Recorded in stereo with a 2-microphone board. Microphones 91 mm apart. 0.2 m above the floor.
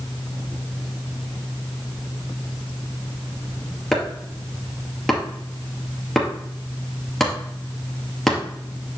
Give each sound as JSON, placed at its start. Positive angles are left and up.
{"t": 3.9, "sound": "chopping", "side_deg": 0, "distance_m": 2.0}